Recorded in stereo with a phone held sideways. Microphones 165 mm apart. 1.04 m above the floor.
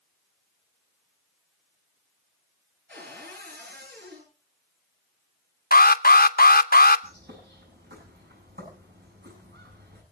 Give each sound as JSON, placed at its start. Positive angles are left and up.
{"t": 2.9, "sound": "a cupboard door", "side_deg": -75, "distance_m": 10.0}
{"t": 5.7, "sound": "an alarm", "side_deg": 65, "distance_m": 0.7}
{"t": 7.0, "sound": "a bird", "side_deg": -85, "distance_m": 8.0}